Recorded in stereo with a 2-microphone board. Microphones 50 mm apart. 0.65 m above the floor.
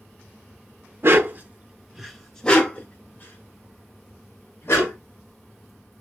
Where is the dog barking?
55° right (ahead or behind), 0.6 m; by 5.0 s 50° left (ahead or behind), 1.8 m.